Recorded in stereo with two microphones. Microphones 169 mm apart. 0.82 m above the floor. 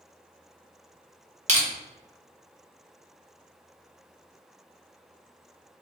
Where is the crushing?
45° right (ahead or behind), 0.6 m.